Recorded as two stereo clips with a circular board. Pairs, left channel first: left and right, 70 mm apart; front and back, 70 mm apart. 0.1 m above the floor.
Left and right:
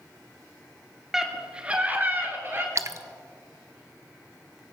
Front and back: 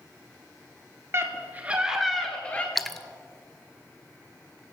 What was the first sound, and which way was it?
A scream, 170° right.